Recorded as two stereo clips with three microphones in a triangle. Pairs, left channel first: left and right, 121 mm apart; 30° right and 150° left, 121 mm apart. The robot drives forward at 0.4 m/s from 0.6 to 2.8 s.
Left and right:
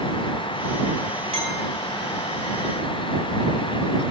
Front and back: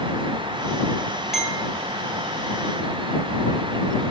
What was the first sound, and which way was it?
A clink, 125° right.